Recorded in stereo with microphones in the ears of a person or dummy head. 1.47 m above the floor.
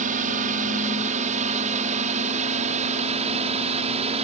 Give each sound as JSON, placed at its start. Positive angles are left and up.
{"t": 0.0, "sound": "a drone", "side_deg": -40}